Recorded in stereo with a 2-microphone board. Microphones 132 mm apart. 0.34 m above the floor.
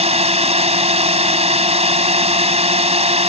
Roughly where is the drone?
Right.